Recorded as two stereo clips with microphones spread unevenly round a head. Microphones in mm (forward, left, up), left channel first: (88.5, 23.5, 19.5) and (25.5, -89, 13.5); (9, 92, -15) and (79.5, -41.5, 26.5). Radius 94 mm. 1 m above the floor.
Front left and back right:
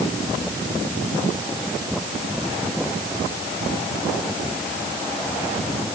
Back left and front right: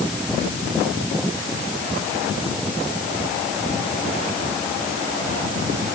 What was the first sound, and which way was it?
Only background noise.